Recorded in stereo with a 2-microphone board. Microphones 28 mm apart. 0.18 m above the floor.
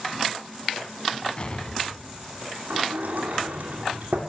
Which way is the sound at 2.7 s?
75° right (ahead or behind).